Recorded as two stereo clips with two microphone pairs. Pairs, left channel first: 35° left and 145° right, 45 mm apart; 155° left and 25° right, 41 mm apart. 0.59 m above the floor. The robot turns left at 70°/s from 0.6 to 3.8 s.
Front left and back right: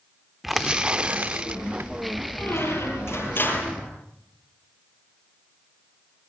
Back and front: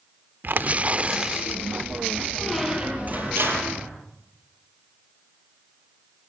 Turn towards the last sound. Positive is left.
turn(degrees=-35)